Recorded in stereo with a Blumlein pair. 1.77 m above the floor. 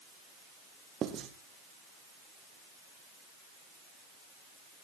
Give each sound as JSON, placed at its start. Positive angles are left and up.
{"t": 1.0, "sound": "writing", "azimuth_deg": -25, "distance_m": 2.5}